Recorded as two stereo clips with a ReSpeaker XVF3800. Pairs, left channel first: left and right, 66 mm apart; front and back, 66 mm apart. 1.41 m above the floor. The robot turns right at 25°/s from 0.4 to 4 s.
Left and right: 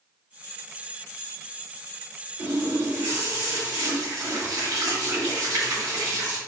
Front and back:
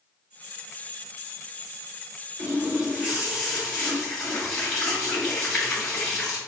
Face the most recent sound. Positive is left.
turn(degrees=-85)